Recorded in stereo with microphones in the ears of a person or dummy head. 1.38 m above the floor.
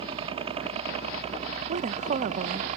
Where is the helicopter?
35° right (ahead or behind); by 2.8 s 40° right (ahead or behind).